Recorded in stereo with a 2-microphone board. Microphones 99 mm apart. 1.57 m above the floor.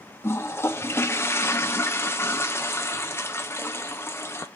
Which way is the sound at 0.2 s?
25° left (ahead or behind).